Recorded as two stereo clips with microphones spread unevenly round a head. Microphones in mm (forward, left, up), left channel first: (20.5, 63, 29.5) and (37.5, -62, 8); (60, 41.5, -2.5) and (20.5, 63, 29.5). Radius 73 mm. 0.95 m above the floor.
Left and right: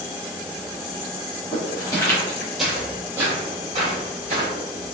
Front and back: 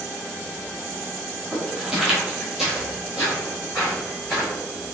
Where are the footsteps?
130° left, 1.4 m; by 4.5 s 135° right, 2 m.